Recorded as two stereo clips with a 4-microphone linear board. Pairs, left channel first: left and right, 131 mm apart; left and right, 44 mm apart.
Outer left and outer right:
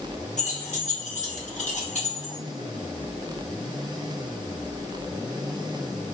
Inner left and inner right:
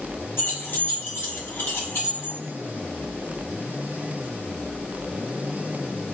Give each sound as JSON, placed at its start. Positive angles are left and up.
{"t": 0.4, "sound": "keys jangling", "side_deg": 65, "distance_m": 1.1}